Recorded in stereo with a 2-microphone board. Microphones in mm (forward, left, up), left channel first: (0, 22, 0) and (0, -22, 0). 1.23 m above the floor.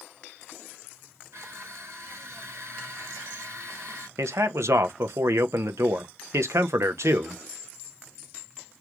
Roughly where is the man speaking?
Right.